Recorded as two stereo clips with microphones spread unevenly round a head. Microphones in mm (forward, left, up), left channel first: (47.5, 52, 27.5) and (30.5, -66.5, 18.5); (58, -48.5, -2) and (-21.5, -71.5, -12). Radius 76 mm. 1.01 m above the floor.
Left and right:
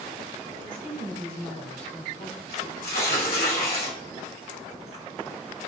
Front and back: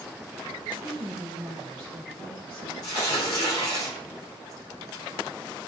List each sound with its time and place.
0.6 s a woman speaking: 115° left, 4 m; by 2.7 s 135° left, 2 m
2.8 s tearing paper: 90° left, 3 m